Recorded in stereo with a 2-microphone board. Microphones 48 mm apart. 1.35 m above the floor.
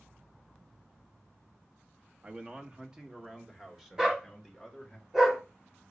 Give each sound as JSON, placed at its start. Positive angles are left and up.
{"t": 2.2, "sound": "a man speaking", "side_deg": -30, "distance_m": 0.8}
{"t": 4.0, "sound": "a dog barking", "side_deg": -10, "distance_m": 1.2}